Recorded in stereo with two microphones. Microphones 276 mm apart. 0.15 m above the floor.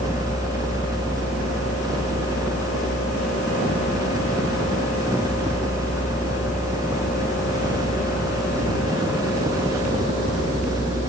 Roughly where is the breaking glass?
I don't hear breaking glass.